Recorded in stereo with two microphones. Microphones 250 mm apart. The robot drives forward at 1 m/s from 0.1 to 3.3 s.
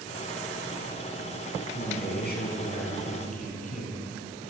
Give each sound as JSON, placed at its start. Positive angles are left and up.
{"t": 1.7, "sound": "a man speaking", "side_deg": 45, "distance_m": 3.5}